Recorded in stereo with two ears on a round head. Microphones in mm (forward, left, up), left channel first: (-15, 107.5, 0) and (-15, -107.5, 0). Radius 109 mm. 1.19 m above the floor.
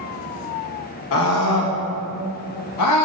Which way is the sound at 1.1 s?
55° left (ahead or behind).